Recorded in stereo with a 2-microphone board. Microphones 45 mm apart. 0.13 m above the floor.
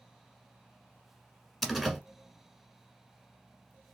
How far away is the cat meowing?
I don't hear a cat meowing.